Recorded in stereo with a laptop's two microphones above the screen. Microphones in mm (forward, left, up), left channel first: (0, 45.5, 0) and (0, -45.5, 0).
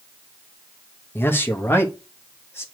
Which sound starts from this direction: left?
A man speaking, at 1.1 s.